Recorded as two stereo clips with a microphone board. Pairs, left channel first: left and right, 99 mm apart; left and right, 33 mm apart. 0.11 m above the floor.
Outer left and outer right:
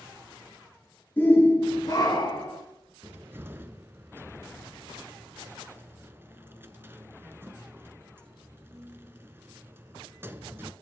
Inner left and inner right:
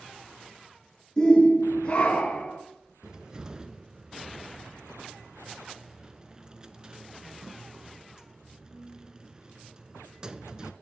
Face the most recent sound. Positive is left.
turn(degrees=-25)  # may be behind; listen again after turning